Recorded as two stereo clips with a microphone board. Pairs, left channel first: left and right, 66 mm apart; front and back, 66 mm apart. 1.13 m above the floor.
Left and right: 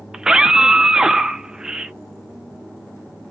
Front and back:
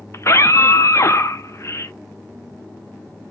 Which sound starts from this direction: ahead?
A scream, at 0.1 s.